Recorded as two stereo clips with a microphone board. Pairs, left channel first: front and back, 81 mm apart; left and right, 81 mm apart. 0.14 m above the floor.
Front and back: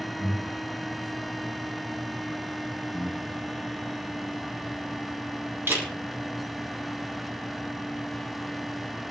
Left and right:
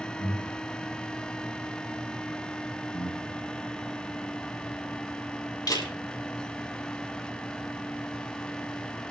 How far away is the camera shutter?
About 4 m.